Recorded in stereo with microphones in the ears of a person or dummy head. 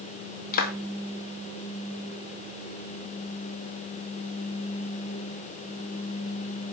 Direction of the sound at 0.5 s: 50° left (ahead or behind).